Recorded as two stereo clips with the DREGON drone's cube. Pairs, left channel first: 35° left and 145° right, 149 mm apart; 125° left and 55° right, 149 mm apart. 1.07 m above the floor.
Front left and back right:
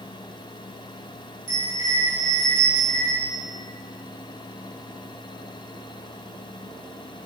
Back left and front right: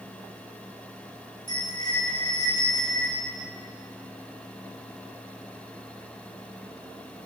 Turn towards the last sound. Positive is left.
turn(degrees=65)